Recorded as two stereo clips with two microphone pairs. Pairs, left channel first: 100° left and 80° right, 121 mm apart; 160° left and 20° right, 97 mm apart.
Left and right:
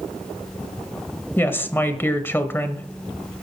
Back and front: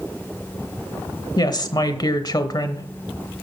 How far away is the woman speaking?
About 1.1 m.